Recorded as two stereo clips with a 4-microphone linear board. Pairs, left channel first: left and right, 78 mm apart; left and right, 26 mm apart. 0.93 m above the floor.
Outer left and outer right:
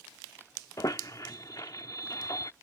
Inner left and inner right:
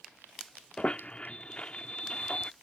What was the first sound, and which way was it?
A squeak, 50° left (ahead or behind).